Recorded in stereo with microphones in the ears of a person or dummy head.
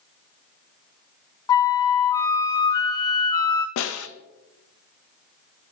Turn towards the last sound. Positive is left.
turn(degrees=70)  # may be behind; listen again after turning